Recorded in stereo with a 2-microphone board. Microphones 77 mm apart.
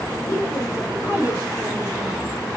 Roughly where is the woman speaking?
Left.